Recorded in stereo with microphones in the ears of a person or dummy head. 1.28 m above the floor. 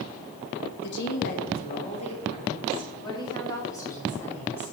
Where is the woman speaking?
60° left (ahead or behind), 1.7 m; by 4.7 s 10° left (ahead or behind), 4 m.